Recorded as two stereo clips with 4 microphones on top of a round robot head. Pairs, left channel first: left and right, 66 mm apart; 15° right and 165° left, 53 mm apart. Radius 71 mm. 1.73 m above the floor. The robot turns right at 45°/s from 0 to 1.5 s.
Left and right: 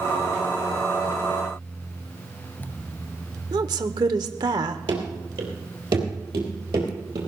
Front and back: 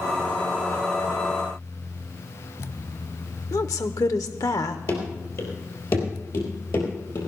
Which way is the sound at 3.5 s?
55° right.